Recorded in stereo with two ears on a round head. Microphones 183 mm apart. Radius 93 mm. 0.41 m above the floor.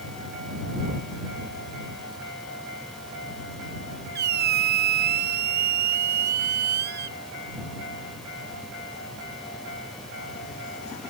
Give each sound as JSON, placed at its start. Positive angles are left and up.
{"t": 4.2, "sound": "a squeak", "side_deg": -50}